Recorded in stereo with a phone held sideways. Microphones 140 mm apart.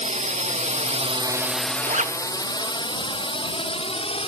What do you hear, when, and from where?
0.0 s a drone: 60° right (ahead or behind); by 4.3 s 45° left (ahead or behind)
1.9 s a zipper: 60° right (ahead or behind)